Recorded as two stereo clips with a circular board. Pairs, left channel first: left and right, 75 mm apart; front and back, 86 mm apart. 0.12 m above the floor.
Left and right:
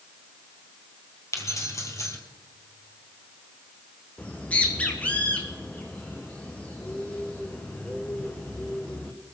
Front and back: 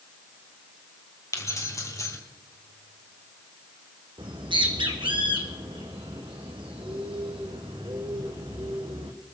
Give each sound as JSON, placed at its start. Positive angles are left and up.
{"t": 1.3, "sound": "keys jangling", "azimuth_deg": 50, "distance_m": 2.0}
{"t": 4.2, "sound": "a bird", "azimuth_deg": 160, "distance_m": 1.6}